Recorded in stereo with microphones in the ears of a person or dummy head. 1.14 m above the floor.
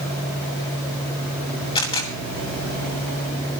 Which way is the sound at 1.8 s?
25° left (ahead or behind).